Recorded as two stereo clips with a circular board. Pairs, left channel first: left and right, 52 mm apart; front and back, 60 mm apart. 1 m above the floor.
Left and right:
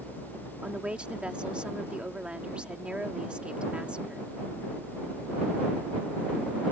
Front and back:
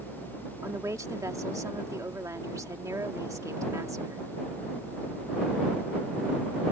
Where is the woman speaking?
160° right.